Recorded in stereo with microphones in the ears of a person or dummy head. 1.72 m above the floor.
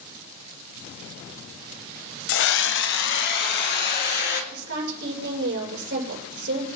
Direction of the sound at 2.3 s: 80° left.